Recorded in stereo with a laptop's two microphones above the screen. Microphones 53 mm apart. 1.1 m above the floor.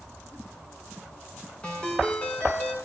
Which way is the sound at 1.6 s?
20° left (ahead or behind).